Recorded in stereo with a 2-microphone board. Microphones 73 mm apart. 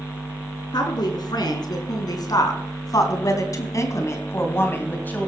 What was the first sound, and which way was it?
A woman speaking, 70° left (ahead or behind).